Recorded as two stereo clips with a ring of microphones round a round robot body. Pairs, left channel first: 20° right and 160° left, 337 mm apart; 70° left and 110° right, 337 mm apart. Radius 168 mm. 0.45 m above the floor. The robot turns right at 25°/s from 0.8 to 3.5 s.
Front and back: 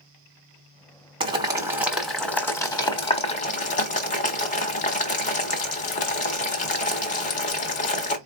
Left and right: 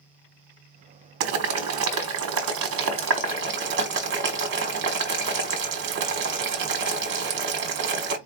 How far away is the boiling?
About 1.2 m.